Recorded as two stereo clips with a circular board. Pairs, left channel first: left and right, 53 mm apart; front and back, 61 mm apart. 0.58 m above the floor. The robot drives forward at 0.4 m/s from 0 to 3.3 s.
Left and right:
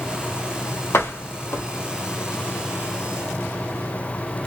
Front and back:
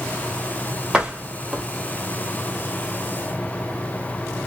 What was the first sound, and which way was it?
A door slam, 105° left.